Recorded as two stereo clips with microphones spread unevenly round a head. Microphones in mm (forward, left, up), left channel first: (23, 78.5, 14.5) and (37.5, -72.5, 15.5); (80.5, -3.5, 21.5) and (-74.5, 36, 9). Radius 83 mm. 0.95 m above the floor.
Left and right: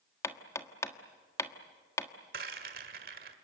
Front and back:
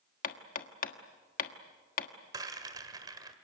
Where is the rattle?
125° right, 1.6 m.